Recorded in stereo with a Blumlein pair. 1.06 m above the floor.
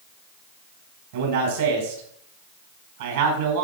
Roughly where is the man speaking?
Ahead right.